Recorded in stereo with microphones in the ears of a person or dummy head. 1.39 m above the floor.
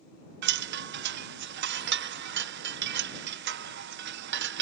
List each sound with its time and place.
0.4 s a chime: 60° right (ahead or behind)